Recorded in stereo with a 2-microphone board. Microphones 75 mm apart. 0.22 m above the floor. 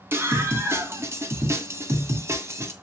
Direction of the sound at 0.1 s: 30° right (ahead or behind).